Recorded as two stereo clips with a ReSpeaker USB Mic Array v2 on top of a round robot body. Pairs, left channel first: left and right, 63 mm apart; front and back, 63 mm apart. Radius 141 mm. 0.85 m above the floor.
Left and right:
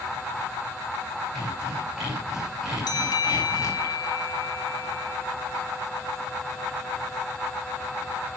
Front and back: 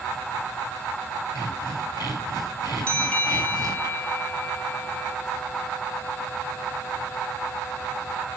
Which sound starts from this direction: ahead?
Sawing, at 1.4 s.